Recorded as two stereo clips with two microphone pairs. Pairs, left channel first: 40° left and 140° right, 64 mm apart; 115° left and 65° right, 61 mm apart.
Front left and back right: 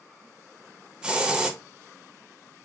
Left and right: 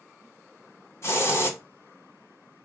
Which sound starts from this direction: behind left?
A hiss, at 1.0 s.